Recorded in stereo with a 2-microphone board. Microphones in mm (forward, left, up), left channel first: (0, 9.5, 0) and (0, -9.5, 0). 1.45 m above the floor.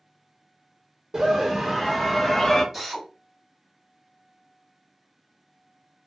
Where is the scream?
45° right (ahead or behind), 0.7 m; by 2.6 s 35° left (ahead or behind), 0.6 m.